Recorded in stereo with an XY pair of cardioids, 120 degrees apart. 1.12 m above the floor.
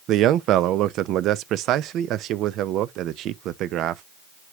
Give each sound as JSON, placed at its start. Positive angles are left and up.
{"t": 0.1, "sound": "a man speaking", "azimuth_deg": -70, "distance_m": 0.6}